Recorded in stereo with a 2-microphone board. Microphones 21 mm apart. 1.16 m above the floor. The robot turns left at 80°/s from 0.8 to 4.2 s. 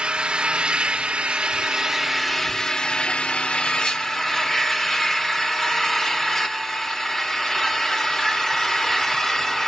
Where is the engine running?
60° right, 1.1 m; by 9.7 s 30° left, 1.1 m.